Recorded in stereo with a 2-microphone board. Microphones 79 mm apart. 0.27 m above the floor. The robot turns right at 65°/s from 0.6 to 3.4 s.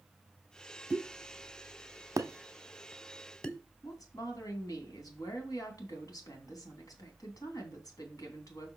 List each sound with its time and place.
0.9 s a pop: 30° right (ahead or behind), 0.8 m; by 3.6 s 15° left (ahead or behind), 0.8 m
3.8 s a woman speaking: 55° left (ahead or behind), 2.5 m